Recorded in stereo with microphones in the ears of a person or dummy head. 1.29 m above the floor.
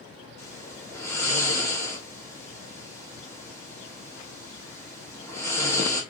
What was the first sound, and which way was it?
Snoring, 15° left (ahead or behind).